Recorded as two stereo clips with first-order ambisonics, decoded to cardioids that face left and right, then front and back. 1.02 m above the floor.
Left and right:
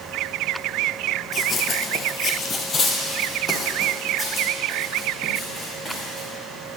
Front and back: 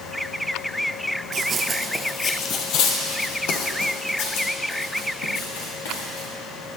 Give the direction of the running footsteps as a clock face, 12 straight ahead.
7 o'clock.